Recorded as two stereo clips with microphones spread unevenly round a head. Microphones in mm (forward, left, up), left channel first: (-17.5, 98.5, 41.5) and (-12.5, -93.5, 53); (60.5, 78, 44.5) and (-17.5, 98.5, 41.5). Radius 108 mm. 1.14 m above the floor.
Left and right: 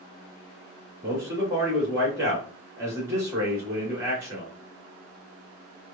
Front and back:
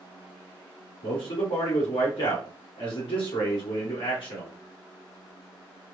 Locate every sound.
1.0 s a man speaking: 15° right, 1.6 m